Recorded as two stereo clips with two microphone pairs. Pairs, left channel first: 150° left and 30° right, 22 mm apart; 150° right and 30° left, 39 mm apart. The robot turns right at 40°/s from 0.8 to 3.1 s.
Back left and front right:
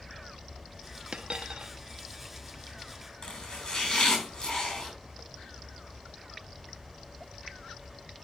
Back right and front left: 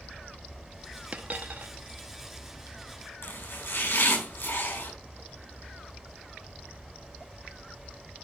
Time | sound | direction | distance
1.1 | a dropped coin | 20° right | 0.8 m
3.2 | chopping | 155° right | 5 m